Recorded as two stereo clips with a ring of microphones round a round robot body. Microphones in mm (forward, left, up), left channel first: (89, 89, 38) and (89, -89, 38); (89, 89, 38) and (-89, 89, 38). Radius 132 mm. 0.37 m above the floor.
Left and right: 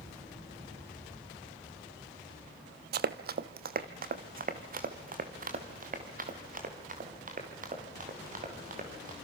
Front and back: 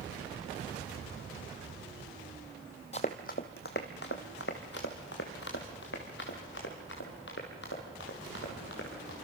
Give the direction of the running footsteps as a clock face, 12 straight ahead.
2 o'clock.